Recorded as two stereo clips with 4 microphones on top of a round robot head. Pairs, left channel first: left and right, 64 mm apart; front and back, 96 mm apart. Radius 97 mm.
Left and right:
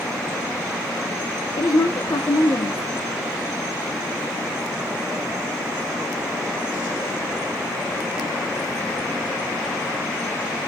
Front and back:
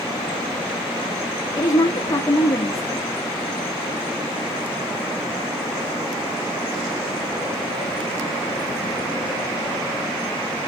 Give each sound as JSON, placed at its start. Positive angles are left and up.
{"t": 1.6, "sound": "a woman speaking", "azimuth_deg": 55, "distance_m": 1.5}